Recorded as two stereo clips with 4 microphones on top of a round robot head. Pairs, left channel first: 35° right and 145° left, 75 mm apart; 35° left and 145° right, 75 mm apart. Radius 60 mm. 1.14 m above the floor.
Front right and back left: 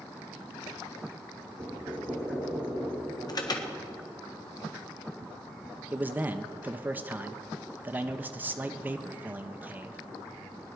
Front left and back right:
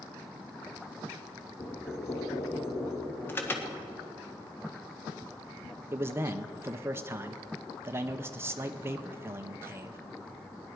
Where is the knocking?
85° left, 2.5 m.